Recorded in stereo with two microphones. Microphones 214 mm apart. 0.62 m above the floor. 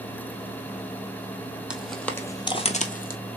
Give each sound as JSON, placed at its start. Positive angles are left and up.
{"t": 1.7, "sound": "footsteps", "side_deg": -5, "distance_m": 1.0}